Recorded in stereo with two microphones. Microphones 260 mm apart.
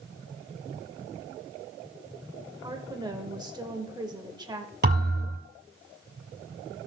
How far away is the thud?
About 2.5 m.